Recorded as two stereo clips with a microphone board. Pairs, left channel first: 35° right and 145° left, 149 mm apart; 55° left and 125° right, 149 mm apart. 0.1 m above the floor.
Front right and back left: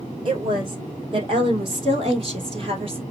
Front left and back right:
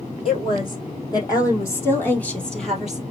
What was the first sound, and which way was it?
A woman speaking, 100° left.